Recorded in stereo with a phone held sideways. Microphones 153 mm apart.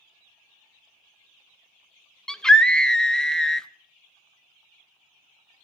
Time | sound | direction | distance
2.3 | a scream | 5° left (ahead or behind) | 0.5 m